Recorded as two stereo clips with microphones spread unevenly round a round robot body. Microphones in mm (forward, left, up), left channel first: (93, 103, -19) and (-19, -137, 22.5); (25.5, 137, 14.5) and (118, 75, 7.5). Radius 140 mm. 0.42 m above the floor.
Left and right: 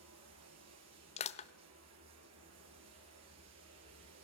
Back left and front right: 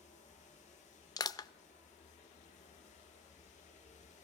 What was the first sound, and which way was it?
Running water, 155° right.